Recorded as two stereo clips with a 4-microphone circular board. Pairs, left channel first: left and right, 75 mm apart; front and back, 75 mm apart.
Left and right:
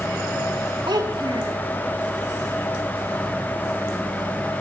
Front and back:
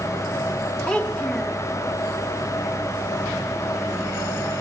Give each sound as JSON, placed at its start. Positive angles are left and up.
{"t": 0.9, "sound": "a child speaking", "azimuth_deg": -80, "distance_m": 1.2}